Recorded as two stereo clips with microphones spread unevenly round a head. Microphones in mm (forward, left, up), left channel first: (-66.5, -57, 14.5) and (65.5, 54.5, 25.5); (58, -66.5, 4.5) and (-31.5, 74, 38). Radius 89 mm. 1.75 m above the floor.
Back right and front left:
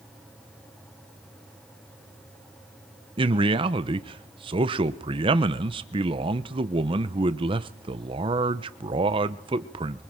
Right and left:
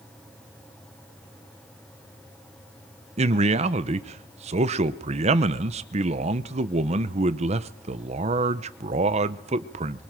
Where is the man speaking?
95° left, 1.0 m.